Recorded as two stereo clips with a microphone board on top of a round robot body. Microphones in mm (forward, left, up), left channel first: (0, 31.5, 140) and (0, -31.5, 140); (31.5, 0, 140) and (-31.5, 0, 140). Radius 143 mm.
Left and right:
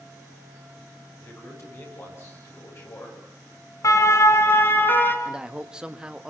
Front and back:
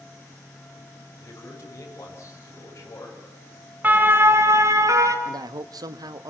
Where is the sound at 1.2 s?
45° left, 9 m.